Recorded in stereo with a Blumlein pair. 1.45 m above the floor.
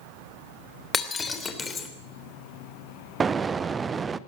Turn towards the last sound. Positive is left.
turn(degrees=-15)